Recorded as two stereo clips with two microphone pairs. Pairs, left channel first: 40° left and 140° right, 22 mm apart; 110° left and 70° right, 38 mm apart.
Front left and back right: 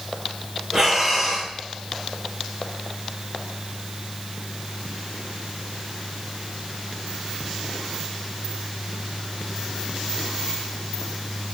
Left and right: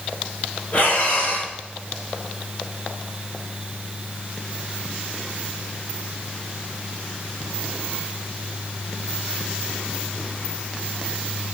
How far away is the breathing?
About 4.5 m.